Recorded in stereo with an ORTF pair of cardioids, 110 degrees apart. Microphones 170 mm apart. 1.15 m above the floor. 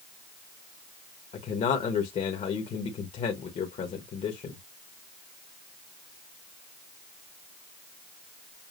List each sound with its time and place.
1.3 s a man speaking: 45° left, 1.2 m